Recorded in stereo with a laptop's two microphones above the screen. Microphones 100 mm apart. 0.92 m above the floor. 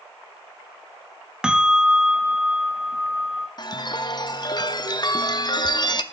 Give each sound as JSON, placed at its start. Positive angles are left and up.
{"t": 1.4, "sound": "a bell", "side_deg": -10, "distance_m": 1.0}
{"t": 3.6, "sound": "a chime", "side_deg": 45, "distance_m": 0.5}